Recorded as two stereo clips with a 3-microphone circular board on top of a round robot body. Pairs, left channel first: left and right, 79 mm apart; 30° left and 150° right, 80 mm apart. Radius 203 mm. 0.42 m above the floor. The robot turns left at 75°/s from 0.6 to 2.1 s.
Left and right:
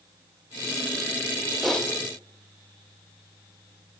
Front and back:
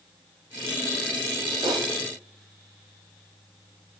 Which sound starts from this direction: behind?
Typing on a keyboard, at 1.6 s.